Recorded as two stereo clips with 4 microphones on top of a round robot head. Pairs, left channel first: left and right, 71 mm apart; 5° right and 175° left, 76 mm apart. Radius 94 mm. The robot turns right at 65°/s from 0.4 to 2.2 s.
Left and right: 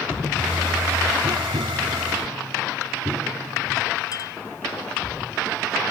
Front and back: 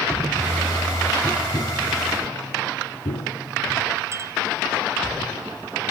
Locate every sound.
1.2 s tapping: 80° right; by 3.8 s 15° right
4.1 s a clink: 125° left